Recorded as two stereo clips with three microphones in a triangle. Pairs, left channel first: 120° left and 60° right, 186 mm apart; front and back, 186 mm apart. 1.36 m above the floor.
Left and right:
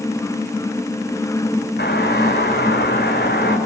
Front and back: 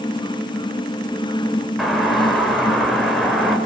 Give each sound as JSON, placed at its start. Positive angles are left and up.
{"t": 1.8, "sound": "a doorbell", "azimuth_deg": 90, "distance_m": 6.5}